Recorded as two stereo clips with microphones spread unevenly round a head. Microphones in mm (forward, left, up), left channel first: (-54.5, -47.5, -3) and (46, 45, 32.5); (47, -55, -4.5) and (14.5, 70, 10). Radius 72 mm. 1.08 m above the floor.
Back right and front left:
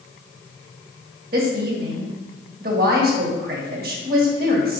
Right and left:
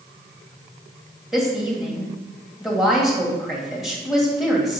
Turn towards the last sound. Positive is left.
turn(degrees=15)